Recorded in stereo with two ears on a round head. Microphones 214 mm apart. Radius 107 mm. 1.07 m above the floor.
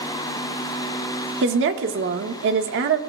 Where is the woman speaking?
55° right (ahead or behind), 1.4 m.